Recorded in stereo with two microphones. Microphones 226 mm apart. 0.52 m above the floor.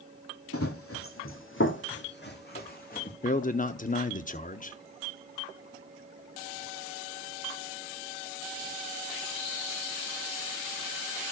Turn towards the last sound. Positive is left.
turn(degrees=35)  # may be behind; listen again after turning